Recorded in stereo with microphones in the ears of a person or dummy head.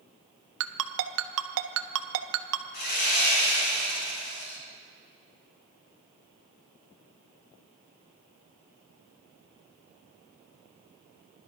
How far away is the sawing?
About 3.5 m.